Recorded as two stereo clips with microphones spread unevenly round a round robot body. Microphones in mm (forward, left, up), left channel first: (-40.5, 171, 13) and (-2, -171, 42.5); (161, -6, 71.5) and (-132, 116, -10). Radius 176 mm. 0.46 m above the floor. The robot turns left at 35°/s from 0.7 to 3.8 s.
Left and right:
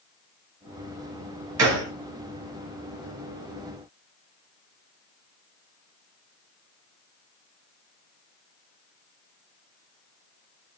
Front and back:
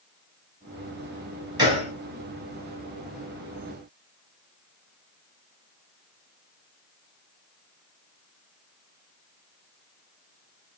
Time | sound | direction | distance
1.6 | a gunshot | 130° right | 3 m